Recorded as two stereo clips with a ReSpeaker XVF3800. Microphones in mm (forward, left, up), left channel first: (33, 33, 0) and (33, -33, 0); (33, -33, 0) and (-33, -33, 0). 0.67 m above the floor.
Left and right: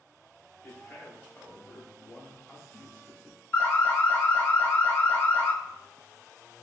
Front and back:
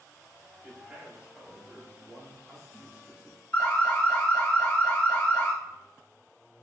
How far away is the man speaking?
About 0.8 m.